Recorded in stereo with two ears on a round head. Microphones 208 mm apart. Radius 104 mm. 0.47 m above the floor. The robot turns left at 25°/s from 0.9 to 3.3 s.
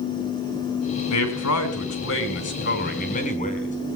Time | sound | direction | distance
1.1 | a man speaking | 90° left | 4 m